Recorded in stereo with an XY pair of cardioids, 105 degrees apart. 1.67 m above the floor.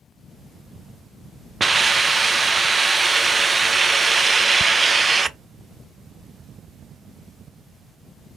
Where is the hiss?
20° right, 0.5 m.